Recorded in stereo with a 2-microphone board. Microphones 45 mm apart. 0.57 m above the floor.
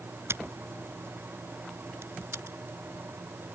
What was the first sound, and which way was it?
Scissors, 70° right (ahead or behind).